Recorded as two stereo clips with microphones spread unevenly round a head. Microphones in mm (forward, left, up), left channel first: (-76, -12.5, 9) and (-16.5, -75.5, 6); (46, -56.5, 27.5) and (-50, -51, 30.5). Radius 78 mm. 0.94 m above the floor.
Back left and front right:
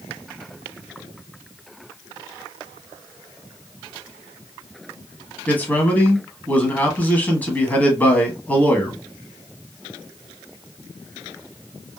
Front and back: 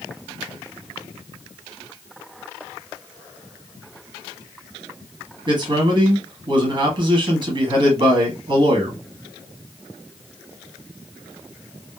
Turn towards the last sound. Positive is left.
turn(degrees=-155)